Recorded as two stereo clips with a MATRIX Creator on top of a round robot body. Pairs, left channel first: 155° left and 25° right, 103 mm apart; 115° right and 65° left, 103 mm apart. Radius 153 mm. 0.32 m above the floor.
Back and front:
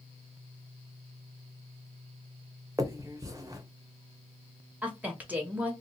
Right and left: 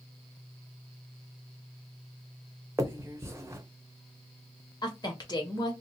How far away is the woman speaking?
About 1.6 m.